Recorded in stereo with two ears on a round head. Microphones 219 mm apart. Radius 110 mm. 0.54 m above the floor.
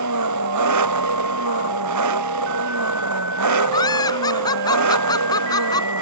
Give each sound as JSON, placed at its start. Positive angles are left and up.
{"t": 0.0, "sound": "an engine running", "side_deg": -85}
{"t": 3.7, "sound": "laughter", "side_deg": 15}